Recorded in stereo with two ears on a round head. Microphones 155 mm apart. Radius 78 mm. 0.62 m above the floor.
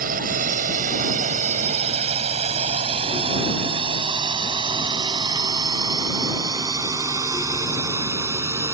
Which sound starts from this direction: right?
A drone, at 0.0 s.